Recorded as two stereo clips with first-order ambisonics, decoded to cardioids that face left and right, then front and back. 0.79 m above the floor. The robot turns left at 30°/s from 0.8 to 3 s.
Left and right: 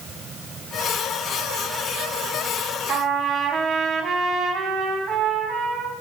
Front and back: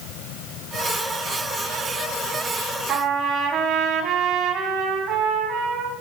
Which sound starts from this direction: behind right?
A trumpet, at 2.9 s.